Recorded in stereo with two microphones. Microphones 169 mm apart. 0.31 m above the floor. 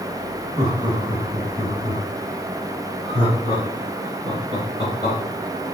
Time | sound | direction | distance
0.6 | laughter | 20° right (ahead or behind) | 1.1 m